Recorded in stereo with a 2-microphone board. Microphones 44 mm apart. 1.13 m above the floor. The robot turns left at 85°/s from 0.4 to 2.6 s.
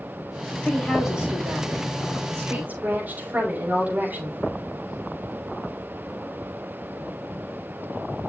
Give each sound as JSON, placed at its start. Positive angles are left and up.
{"t": 0.6, "sound": "a woman speaking", "azimuth_deg": 30, "distance_m": 6.5}